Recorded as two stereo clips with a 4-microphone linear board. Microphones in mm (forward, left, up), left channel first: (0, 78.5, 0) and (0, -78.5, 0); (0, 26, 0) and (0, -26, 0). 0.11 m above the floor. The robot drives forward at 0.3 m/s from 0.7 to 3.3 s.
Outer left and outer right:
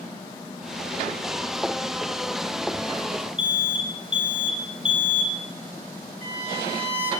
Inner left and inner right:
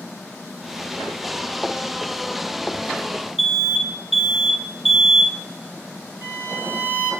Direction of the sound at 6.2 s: 35° right (ahead or behind).